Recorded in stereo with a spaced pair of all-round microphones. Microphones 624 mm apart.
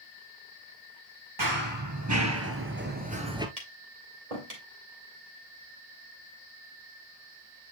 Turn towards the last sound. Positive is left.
turn(degrees=-75)  # may be behind; listen again after turning